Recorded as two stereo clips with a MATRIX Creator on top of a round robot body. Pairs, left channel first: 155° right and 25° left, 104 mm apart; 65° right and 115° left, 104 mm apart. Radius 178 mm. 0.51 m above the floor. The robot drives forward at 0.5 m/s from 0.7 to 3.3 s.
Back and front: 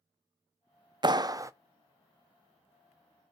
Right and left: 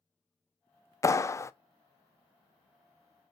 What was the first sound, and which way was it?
A clap, 10° right.